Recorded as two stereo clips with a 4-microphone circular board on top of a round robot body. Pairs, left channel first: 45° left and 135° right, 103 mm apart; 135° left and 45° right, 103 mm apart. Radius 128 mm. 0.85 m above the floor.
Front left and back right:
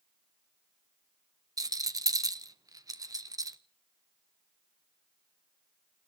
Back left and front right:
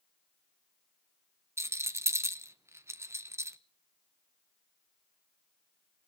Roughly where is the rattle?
Right.